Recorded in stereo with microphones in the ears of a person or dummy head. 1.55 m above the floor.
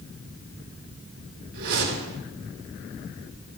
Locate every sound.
1.5 s a whoosh: 55° right (ahead or behind), 3.5 m